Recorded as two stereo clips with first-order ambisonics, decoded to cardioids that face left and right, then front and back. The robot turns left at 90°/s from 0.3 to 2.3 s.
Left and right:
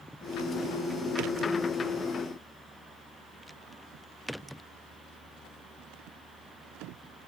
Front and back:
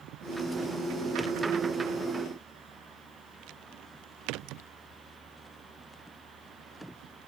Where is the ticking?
No ticking in this recording.